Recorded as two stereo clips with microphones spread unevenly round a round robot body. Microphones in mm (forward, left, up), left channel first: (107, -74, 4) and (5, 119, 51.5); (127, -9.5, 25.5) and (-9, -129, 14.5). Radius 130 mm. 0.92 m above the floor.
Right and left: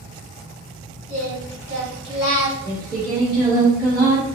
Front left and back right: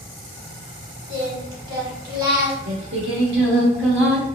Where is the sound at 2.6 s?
155° right, 1.2 m.